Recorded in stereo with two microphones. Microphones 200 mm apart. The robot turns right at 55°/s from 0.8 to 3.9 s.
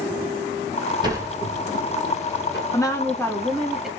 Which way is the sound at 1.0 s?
20° right (ahead or behind).